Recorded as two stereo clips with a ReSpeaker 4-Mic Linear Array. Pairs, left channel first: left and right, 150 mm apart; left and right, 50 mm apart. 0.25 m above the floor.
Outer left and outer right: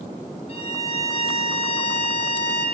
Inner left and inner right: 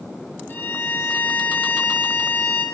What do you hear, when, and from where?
0.5 s a violin: 45° left (ahead or behind), 2 m